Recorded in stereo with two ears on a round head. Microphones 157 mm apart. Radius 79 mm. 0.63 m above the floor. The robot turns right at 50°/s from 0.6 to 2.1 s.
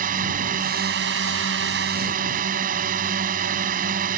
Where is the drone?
125° right; by 4.2 s 50° right.